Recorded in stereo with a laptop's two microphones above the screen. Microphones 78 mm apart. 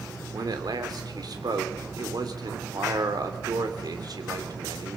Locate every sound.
0.3 s a man speaking: 60° right (ahead or behind), 3 m